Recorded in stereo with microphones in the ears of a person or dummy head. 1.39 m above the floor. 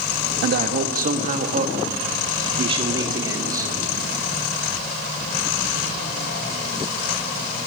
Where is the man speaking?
55° right (ahead or behind), 1.7 m; by 3.9 s 15° right (ahead or behind), 2.5 m.